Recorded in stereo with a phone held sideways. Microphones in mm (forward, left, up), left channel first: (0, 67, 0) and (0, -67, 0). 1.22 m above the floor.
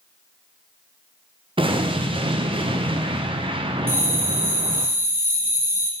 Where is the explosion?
40° right (ahead or behind), 0.5 m.